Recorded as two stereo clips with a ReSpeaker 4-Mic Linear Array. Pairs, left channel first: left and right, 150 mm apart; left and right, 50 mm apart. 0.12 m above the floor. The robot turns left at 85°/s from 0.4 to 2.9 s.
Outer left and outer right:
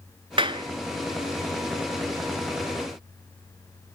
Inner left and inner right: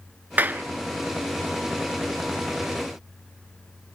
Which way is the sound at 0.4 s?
35° right (ahead or behind).